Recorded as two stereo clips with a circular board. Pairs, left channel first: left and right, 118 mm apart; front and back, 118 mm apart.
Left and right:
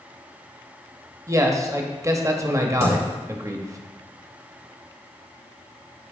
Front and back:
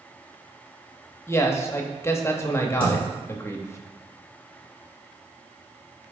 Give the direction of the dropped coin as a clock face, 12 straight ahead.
8 o'clock.